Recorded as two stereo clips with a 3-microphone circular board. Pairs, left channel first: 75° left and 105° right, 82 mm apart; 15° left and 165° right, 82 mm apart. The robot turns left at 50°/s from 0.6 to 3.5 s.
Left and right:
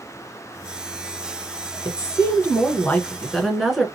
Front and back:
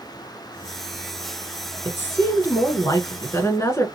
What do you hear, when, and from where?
1.9 s a woman speaking: 65° left, 1.4 m; by 3.9 s 15° right, 1.4 m